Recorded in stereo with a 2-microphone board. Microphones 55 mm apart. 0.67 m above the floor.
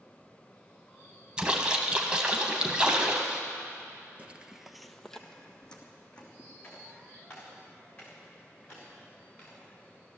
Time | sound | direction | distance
1.4 | a splash | 20° right (ahead or behind) | 1.5 m
4.2 | footsteps | 25° right (ahead or behind) | 0.7 m